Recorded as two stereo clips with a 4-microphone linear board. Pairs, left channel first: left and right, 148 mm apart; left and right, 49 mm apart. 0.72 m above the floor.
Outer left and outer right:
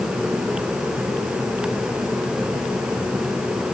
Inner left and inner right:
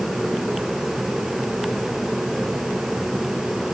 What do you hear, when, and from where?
Only background noise.